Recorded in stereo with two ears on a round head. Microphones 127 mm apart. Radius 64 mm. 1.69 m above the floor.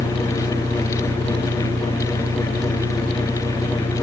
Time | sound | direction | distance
0.0 | an engine running | 50° right (ahead or behind) | ?